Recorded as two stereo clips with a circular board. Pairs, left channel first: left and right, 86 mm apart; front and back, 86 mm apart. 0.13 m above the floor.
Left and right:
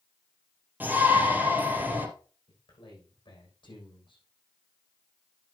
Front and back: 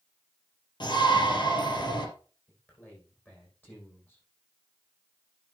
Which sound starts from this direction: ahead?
A shout, at 0.8 s.